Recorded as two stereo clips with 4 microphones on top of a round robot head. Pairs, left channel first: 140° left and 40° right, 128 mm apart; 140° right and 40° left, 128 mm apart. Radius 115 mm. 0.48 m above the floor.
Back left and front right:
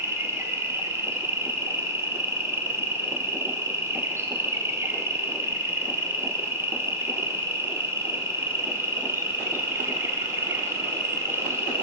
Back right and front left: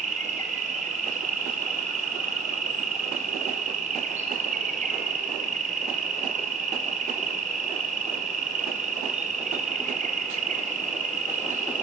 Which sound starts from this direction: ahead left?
An insect, at 0.0 s.